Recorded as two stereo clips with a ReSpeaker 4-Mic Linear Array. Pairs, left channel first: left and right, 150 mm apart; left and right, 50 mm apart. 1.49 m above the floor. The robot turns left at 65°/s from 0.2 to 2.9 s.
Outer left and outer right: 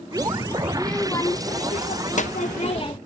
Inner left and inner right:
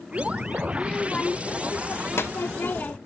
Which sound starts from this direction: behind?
A child speaking, at 0.7 s.